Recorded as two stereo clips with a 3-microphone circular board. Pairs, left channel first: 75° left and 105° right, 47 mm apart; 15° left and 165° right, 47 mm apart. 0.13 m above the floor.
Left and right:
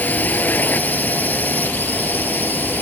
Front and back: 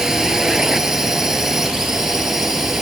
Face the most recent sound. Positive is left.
turn(degrees=115)